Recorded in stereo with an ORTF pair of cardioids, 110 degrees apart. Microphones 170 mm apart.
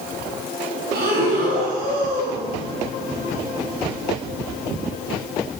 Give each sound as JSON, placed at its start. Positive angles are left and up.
{"t": 0.9, "sound": "breathing", "azimuth_deg": -70, "distance_m": 3.5}